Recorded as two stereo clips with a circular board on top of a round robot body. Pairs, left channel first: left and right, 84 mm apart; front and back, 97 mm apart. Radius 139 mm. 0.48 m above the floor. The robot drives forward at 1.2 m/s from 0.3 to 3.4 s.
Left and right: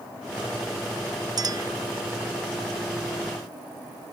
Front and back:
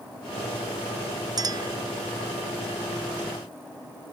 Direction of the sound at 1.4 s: 130° right.